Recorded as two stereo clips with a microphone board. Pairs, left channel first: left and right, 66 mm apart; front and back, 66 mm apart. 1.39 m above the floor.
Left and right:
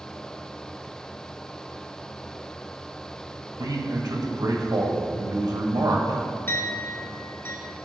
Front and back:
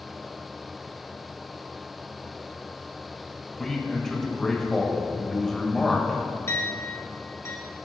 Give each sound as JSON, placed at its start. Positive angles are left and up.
{"t": 3.6, "sound": "a man speaking", "azimuth_deg": -85, "distance_m": 1.7}
{"t": 6.5, "sound": "a clink", "azimuth_deg": 40, "distance_m": 3.0}